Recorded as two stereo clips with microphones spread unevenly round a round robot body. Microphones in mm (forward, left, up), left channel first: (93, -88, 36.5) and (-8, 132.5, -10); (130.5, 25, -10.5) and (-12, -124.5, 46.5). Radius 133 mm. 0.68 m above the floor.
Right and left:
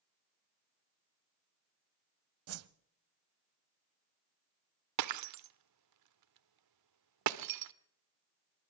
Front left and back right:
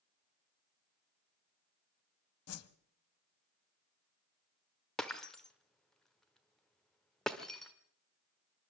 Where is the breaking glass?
135° left, 1.0 m.